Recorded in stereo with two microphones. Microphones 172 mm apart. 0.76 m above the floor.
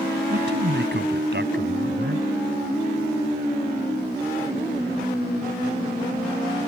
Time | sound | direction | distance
0.3 | a man speaking | 70° right (ahead or behind) | ?